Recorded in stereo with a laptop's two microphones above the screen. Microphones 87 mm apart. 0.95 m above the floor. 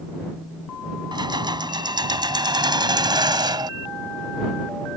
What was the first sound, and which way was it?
Keys jangling, 55° right (ahead or behind).